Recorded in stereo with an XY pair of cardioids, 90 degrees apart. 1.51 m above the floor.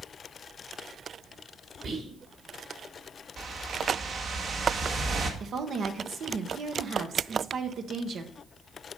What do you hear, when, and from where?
1.8 s whispering: 65° right, 4 m
3.4 s a whoosh: 65° right, 1.7 m
5.4 s a woman speaking: 65° right, 1.2 m